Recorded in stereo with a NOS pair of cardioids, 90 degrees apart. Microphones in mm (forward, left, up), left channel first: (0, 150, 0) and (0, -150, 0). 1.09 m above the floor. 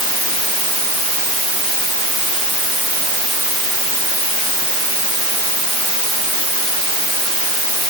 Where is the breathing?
No breathing in this recording.